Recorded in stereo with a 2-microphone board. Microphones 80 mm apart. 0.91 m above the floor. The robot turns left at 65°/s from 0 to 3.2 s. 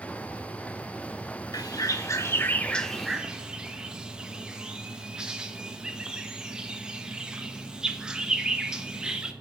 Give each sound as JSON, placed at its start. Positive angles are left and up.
{"t": 1.5, "sound": "a bird", "side_deg": 50, "distance_m": 1.1}